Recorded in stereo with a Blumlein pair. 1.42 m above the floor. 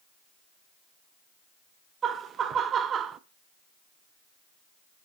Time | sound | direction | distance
2.0 | laughter | 25° right | 0.5 m